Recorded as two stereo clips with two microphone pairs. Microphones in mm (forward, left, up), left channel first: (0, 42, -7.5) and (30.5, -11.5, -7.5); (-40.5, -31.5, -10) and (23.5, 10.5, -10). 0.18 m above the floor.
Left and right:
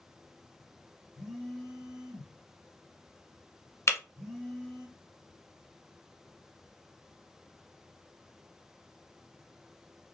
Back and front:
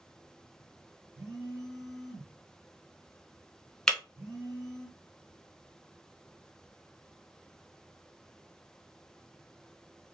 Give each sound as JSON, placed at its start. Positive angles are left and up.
{"t": 1.1, "sound": "a phone buzzing", "azimuth_deg": 20, "distance_m": 1.9}
{"t": 3.9, "sound": "breaking glass", "azimuth_deg": 140, "distance_m": 0.6}